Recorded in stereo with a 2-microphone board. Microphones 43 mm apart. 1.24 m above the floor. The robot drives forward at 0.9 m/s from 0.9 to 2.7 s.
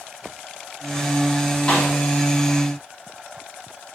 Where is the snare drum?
25° left (ahead or behind), 2.0 m; by 1.9 s 20° left (ahead or behind), 2 m.